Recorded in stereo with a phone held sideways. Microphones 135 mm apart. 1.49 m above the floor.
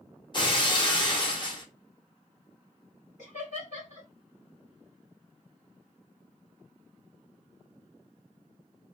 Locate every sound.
0.3 s breaking glass: 35° left (ahead or behind), 0.7 m
3.2 s laughter: 70° left (ahead or behind), 1.7 m